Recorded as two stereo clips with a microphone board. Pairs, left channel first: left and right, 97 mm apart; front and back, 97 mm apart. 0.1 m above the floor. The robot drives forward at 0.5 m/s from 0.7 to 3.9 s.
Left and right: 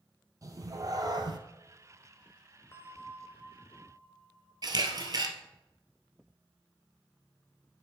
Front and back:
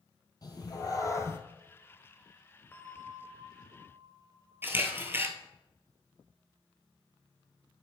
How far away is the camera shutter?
About 1.1 m.